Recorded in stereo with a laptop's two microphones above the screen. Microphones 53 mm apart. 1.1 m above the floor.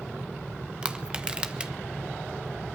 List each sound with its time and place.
0.8 s crushing: 20° right (ahead or behind), 1.3 m